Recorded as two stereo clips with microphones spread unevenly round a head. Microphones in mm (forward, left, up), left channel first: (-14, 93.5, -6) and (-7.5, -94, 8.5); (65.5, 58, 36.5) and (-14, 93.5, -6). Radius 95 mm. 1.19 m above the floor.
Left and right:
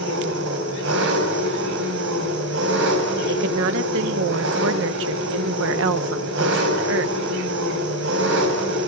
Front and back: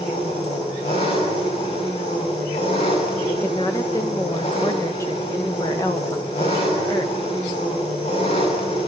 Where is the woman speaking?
105° right, 1.2 m.